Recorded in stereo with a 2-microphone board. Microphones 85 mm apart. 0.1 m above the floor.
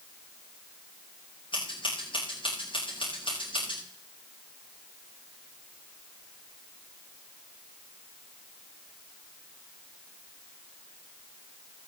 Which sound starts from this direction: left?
Scissors, at 1.5 s.